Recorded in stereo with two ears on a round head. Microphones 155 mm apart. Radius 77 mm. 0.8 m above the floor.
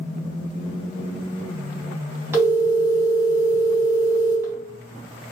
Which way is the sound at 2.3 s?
15° right (ahead or behind).